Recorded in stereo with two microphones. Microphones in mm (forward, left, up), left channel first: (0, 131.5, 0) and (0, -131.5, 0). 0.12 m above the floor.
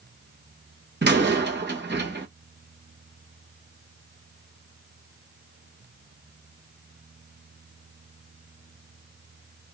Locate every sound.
1.0 s a door slam: 40° right (ahead or behind), 0.9 m